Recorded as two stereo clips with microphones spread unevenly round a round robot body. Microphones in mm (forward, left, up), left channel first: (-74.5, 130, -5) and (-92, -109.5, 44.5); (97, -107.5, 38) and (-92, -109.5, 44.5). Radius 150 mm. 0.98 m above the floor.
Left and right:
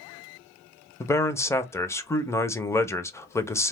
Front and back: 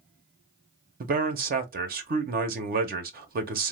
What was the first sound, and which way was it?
A man speaking, 150° left.